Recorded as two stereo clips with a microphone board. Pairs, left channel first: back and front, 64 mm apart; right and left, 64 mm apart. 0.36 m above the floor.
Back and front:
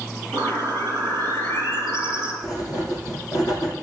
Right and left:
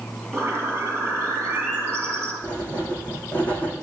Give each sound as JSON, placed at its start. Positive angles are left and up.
{"t": 0.3, "sound": "a bird", "azimuth_deg": 140, "distance_m": 4.0}
{"t": 2.4, "sound": "writing", "azimuth_deg": -160, "distance_m": 3.0}